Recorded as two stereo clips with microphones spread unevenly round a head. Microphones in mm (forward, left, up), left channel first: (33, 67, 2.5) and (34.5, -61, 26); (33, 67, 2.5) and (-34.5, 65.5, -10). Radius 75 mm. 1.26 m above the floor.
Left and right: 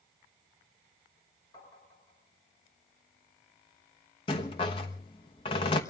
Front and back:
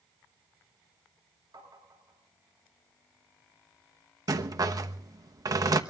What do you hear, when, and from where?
1.5 s tapping: 155° left, 8.5 m
4.3 s a rattle: 150° left, 1.1 m